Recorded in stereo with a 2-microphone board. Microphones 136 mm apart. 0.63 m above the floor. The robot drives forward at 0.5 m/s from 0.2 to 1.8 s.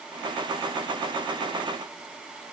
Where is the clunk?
No clunk in this recording.